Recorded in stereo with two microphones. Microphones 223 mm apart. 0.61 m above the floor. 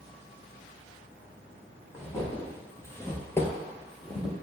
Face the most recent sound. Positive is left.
turn(degrees=0)  # may be behind; listen again after turning